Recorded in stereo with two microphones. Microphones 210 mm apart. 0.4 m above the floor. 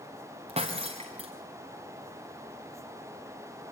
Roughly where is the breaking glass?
Right.